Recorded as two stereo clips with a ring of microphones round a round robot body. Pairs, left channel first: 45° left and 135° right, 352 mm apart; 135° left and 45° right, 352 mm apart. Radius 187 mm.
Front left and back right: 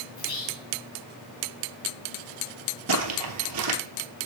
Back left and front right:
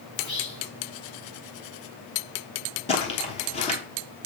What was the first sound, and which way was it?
Whispering, 75° left.